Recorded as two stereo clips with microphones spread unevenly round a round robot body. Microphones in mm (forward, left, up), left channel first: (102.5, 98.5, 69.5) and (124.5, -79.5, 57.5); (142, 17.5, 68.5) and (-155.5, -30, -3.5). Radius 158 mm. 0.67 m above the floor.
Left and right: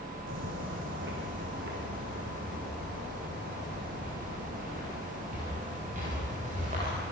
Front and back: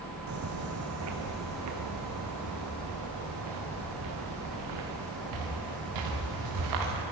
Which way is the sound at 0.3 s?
120° right.